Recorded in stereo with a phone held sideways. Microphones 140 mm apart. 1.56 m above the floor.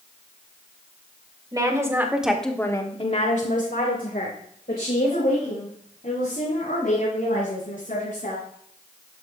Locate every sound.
1.5 s a woman speaking: 25° right (ahead or behind), 2 m; by 8.4 s 70° left (ahead or behind), 7.5 m